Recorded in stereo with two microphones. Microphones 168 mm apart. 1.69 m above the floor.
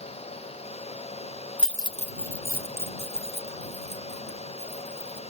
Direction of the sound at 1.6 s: 10° right (ahead or behind).